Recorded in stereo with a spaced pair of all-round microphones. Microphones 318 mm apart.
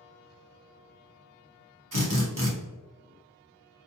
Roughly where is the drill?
Right.